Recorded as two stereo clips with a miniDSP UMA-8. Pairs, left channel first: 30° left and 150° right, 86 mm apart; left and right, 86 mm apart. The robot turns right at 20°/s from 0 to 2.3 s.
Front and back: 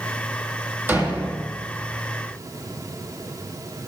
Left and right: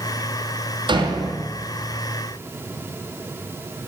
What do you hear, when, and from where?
0.9 s a door slam: 85° right, 3 m; by 1.5 s 75° right, 3 m